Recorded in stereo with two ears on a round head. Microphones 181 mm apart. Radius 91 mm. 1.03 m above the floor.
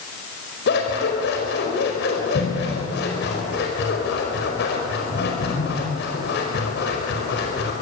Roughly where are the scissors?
Left.